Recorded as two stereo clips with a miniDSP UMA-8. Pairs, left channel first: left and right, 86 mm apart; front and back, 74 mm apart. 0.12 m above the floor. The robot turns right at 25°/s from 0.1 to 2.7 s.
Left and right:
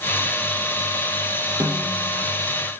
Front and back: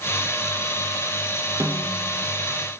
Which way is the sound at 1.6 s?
145° right.